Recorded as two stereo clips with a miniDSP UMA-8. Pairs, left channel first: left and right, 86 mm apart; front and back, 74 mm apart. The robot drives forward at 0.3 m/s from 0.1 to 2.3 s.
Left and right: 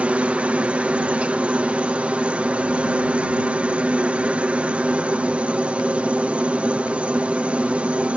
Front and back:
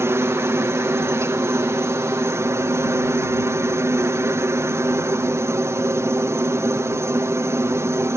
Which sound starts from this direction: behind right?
A helicopter, at 0.0 s.